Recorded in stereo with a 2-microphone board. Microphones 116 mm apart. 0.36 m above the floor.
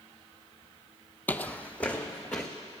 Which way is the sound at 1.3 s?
15° left (ahead or behind).